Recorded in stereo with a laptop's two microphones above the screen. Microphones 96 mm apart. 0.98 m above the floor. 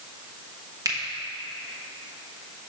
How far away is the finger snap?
About 1.0 m.